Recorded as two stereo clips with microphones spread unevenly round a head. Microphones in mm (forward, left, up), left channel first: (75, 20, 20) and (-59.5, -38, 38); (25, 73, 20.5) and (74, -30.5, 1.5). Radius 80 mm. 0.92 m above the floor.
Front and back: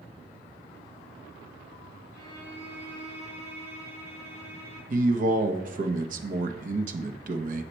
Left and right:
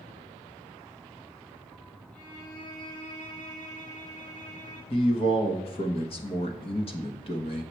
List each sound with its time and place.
2.1 s a violin: 100° left, 4 m
4.9 s a man speaking: 170° left, 0.9 m